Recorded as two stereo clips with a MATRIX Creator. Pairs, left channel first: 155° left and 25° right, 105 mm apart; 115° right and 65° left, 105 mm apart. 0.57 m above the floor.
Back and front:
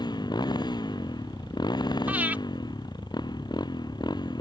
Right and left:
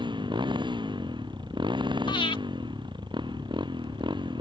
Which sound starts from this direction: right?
Breathing, at 2.1 s.